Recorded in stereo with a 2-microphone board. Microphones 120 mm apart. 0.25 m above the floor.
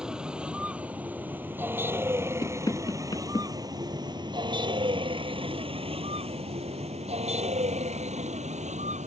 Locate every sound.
0.0 s a vehicle: 5° right (ahead or behind); by 9.1 s 75° right (ahead or behind)
2.4 s knocking: 35° left (ahead or behind)